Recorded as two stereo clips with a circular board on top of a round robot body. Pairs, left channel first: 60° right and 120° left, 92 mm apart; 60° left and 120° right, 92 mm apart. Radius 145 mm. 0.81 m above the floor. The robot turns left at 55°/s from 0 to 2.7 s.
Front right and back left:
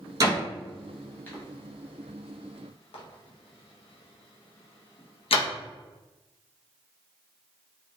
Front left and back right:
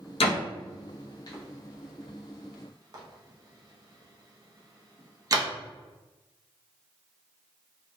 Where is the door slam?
70° left, 0.6 m; by 5.5 s 70° right, 0.6 m.